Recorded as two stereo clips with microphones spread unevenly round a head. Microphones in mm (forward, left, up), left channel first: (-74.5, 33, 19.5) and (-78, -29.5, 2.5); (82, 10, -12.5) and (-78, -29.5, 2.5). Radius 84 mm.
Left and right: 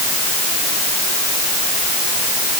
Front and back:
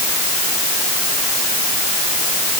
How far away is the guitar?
No guitar in this recording.